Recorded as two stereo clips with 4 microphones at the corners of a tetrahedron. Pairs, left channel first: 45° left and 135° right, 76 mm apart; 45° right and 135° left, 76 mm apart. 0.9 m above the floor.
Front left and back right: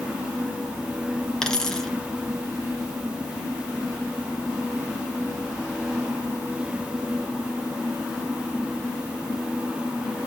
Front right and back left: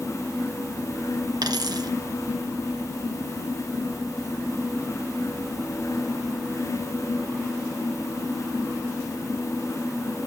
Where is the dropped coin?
125° left, 2 m.